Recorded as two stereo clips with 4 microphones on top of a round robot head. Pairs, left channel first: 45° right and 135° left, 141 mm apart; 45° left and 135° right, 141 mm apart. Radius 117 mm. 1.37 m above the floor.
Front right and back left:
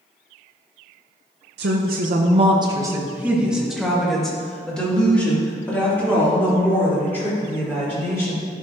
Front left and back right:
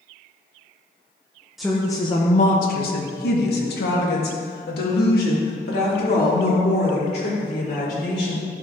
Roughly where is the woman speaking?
Behind left.